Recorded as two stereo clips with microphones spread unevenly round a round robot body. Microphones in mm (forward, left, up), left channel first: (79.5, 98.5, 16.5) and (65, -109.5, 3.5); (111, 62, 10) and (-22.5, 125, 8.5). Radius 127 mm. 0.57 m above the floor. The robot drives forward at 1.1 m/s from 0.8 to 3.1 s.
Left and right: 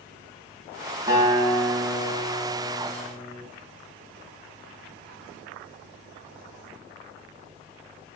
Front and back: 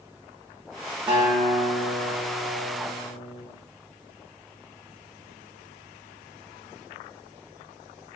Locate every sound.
1.1 s a guitar: 135° right, 0.8 m; by 3.4 s 175° right, 2.5 m